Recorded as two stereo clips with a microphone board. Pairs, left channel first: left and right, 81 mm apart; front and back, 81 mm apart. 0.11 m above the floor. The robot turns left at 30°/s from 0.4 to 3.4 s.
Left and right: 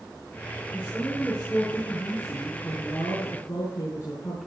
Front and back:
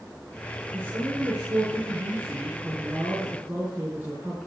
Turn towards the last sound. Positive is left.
turn(degrees=115)